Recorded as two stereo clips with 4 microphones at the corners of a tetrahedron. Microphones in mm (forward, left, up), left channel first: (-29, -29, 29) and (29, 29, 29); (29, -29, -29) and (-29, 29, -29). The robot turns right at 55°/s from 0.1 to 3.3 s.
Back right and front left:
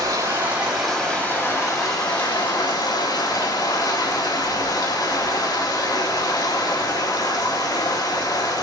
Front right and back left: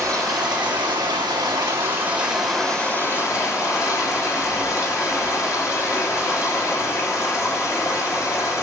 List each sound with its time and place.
0.0 s running water: 95° left, 3.5 m; by 8.6 s 90° right, 3.5 m